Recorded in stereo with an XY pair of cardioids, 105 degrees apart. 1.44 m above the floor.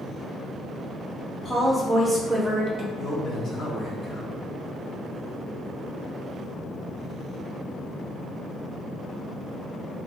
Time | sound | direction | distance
1.4 | a woman speaking | 20° left | 0.7 m
3.0 | a man speaking | 65° left | 1.0 m